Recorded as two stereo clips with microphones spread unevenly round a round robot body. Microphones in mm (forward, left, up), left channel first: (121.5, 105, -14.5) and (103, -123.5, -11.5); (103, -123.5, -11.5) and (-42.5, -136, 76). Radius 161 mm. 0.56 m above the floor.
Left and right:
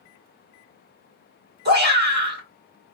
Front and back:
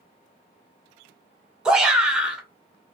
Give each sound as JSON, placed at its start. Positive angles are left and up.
{"t": 1.6, "sound": "a shout", "azimuth_deg": -65, "distance_m": 1.3}